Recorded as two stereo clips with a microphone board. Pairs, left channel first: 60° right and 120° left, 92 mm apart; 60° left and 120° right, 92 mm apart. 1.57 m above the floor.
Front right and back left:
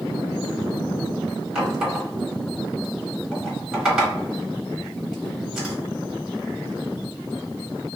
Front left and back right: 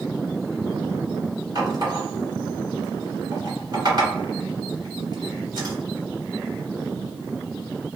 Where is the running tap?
160° right, 1.8 m.